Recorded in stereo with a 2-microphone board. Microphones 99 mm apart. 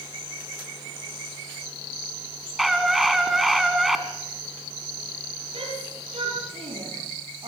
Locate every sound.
2.6 s a scream: centre (ahead or behind), 2.5 m
5.5 s a shout: 80° right, 7 m